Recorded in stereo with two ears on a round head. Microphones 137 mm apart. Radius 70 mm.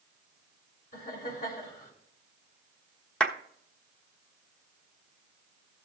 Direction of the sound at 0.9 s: 65° left (ahead or behind).